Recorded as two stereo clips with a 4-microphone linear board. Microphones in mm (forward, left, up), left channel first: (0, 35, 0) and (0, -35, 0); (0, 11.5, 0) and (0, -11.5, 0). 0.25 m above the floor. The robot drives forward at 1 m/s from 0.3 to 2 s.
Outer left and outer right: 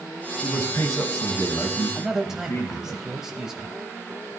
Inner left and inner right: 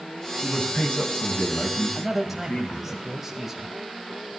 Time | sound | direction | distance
0.4 | a man speaking | 45° left (ahead or behind) | 2 m
1.9 | a man speaking | 10° right (ahead or behind) | 1.0 m